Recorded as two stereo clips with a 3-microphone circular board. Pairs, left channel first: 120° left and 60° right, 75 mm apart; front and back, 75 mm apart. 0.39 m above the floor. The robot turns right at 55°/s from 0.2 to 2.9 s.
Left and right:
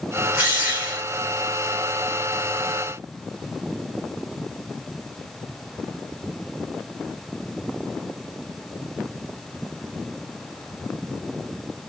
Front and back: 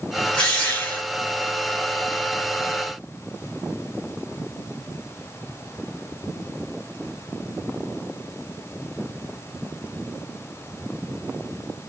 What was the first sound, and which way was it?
A drill, 65° right.